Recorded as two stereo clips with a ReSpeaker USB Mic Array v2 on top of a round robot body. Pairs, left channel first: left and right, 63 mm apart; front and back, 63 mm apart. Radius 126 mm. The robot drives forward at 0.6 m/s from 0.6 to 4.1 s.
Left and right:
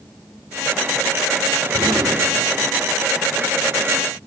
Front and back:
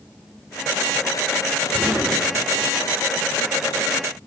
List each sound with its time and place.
1.7 s an explosion: 105° right, 4.5 m; by 2.9 s 110° right, 5 m